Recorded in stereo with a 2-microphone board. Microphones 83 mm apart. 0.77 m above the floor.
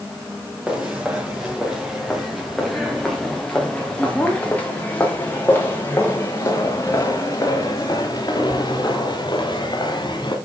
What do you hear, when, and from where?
0.7 s footsteps: 10° right (ahead or behind), 6 m; by 10.3 s 60° left (ahead or behind), 5.5 m